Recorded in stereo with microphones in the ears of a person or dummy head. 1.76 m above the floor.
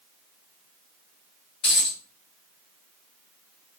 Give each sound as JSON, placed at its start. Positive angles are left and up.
{"t": 1.6, "sound": "a dropped coin", "side_deg": 30, "distance_m": 1.8}